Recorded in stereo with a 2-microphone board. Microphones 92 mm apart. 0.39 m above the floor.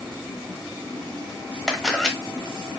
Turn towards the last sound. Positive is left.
turn(degrees=0)  # may be behind; listen again after turning